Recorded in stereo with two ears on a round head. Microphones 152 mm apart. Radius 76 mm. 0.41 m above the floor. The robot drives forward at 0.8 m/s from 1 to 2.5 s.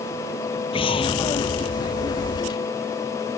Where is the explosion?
30° left (ahead or behind).